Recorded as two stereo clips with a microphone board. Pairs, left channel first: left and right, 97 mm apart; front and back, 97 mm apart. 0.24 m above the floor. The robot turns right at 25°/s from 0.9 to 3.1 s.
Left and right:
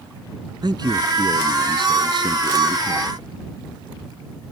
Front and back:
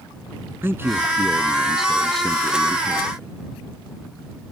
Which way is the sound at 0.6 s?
120° right.